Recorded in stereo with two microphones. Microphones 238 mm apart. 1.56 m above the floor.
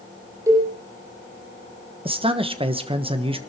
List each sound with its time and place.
0.5 s a cowbell: 15° right (ahead or behind), 7.5 m
2.0 s a man speaking: 20° right (ahead or behind), 1.2 m